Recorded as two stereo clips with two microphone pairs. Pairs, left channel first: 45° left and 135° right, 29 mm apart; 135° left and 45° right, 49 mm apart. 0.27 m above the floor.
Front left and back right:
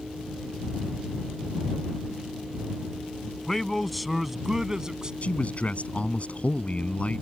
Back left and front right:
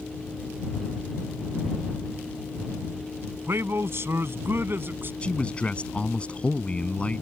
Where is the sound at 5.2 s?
70° left.